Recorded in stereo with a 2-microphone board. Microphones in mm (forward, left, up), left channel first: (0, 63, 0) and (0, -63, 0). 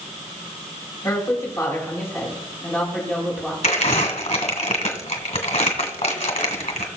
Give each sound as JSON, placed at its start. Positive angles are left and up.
{"t": 1.0, "sound": "a woman speaking", "side_deg": 30, "distance_m": 4.0}
{"t": 3.6, "sound": "crumpling", "side_deg": 70, "distance_m": 2.0}